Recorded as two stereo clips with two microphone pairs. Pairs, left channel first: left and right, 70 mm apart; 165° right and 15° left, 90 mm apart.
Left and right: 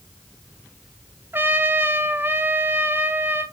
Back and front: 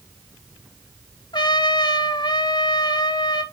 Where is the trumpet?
145° right, 0.7 m.